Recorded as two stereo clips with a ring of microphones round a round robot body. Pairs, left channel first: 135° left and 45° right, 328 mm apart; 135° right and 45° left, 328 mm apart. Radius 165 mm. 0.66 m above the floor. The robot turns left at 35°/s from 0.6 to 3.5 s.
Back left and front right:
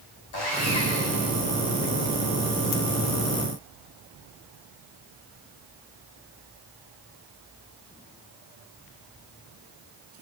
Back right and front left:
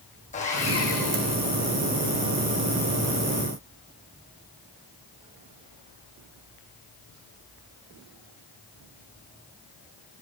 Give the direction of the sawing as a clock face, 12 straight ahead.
7 o'clock.